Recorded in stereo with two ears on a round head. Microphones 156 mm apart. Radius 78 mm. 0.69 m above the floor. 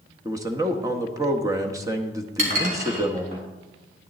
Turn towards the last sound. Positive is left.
turn(degrees=-45)  # may be behind; listen again after turning